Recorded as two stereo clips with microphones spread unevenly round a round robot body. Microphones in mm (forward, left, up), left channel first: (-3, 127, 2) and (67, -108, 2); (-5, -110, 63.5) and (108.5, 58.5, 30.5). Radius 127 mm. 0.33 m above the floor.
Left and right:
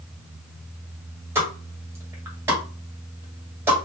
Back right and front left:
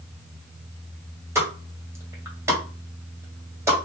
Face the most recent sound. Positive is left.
turn(degrees=0)